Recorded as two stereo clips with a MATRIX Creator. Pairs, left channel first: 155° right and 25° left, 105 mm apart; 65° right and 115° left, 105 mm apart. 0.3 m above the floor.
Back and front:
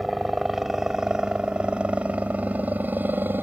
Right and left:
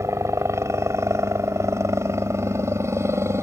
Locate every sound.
0.0 s a helicopter: 115° left; by 3.4 s 75° left